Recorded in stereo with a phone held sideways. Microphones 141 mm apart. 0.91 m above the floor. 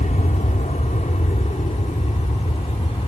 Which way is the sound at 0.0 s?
60° left (ahead or behind).